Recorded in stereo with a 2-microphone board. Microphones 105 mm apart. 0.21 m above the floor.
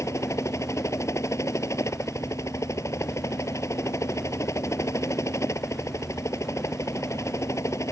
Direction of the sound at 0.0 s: 30° left (ahead or behind).